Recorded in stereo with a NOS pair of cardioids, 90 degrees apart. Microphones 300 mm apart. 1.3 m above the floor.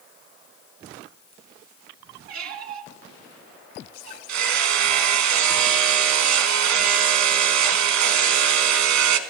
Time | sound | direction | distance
2.3 | a squeak | 65° right | 1.6 m
4.3 | hammering | 65° right | 1.4 m